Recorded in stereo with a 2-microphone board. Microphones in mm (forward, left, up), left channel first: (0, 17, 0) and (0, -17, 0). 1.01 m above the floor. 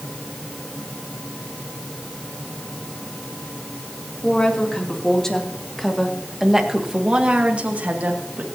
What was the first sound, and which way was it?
A woman speaking, 25° left (ahead or behind).